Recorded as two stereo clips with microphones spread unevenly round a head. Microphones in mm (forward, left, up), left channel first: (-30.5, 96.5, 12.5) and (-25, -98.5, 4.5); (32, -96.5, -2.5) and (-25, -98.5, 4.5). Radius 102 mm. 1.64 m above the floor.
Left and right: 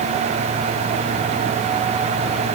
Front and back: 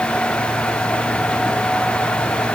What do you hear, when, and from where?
Only background noise.